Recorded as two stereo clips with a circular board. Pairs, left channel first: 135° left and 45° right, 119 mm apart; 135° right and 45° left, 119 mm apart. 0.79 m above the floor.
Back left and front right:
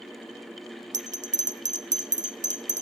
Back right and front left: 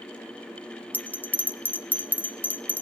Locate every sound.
0.9 s a bell: 60° right, 0.5 m